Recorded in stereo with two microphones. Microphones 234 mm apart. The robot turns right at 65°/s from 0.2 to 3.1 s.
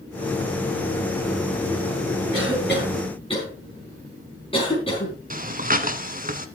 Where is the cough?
70° left (ahead or behind), 4.5 m; by 5.2 s 25° left (ahead or behind), 4.5 m.